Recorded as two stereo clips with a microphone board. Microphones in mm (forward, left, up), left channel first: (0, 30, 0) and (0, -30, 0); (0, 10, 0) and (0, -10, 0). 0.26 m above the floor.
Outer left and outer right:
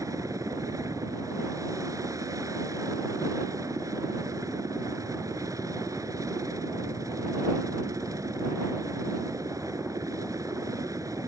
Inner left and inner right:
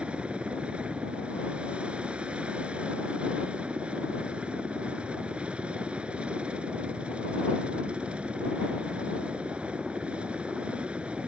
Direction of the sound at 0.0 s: 65° right (ahead or behind).